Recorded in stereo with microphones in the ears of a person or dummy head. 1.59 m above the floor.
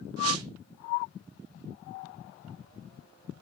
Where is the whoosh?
85° right, 1.2 m.